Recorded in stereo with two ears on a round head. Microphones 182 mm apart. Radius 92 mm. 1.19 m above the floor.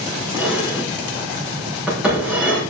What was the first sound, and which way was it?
Dishes clattering, 5° right (ahead or behind).